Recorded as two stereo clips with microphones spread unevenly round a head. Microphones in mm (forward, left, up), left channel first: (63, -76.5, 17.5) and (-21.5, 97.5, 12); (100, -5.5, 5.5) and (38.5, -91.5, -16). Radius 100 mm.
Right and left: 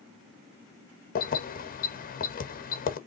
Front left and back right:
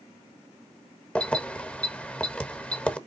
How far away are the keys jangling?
About 1.2 m.